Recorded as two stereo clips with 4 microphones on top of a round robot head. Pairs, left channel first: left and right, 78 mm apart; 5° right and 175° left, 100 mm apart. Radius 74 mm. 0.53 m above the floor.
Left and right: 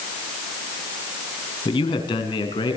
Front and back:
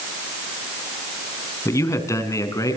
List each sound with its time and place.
1.6 s a man speaking: 60° left, 5 m; by 2.8 s 55° left, 6 m